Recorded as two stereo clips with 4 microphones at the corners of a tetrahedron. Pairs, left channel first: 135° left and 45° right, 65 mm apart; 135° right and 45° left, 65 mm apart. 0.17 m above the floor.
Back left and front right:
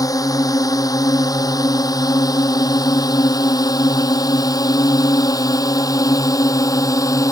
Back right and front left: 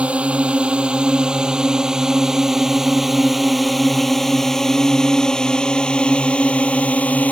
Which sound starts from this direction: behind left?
A drone, at 0.0 s.